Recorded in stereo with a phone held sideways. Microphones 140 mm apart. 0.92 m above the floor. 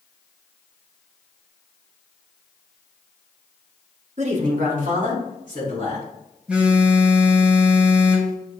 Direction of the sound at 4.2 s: 50° right (ahead or behind).